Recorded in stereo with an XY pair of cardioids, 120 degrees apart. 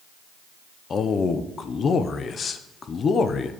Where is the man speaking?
40° left, 0.5 m.